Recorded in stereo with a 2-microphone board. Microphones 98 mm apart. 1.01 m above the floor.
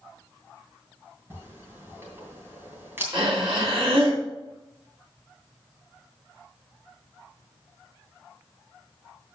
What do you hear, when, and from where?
1.3 s a camera shutter: 25° right (ahead or behind), 2.5 m
3.1 s breathing: 70° right (ahead or behind), 2.5 m